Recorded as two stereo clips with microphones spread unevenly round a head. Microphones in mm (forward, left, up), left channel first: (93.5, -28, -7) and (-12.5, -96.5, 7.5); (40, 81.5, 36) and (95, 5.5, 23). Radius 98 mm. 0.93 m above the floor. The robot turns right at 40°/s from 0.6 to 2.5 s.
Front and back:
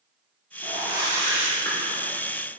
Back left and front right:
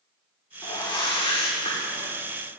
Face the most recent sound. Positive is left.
turn(degrees=150)